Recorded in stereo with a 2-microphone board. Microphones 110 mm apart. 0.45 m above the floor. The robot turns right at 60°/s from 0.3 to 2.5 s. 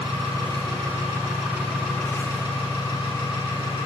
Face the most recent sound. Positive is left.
turn(degrees=40)